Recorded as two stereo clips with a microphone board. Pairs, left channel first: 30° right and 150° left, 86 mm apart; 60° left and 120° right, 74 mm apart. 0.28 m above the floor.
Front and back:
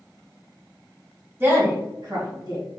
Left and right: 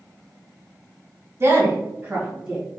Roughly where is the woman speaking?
Behind right.